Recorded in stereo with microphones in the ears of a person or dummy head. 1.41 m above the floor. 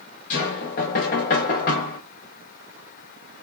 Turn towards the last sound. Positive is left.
turn(degrees=45)  # may be behind; listen again after turning